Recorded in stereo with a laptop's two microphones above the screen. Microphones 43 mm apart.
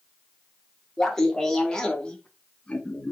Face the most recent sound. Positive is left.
turn(degrees=30)  # may be behind; listen again after turning